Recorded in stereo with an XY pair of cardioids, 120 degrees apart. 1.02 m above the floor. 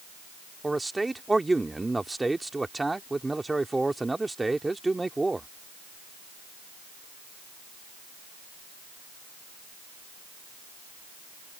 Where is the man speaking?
10° right.